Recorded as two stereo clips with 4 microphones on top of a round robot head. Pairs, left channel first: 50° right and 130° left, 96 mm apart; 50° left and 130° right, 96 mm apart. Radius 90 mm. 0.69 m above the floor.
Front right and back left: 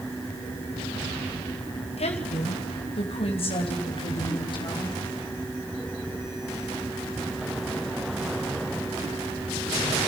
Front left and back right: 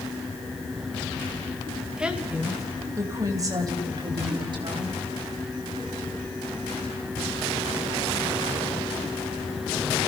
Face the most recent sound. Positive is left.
turn(degrees=-90)